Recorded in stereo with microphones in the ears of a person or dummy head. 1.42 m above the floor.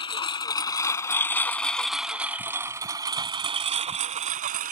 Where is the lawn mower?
25° left (ahead or behind); by 4.7 s 45° right (ahead or behind).